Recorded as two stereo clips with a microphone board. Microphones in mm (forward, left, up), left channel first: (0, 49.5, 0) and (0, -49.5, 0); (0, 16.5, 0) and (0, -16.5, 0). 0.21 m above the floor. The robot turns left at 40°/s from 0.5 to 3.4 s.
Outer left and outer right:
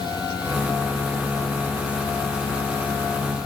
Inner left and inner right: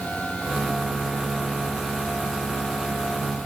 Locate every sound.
Only background noise.